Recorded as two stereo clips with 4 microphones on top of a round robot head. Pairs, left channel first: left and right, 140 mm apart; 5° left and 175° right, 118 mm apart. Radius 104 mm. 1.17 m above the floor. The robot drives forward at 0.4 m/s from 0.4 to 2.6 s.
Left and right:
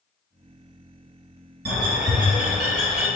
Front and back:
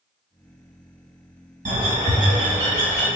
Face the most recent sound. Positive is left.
turn(degrees=-145)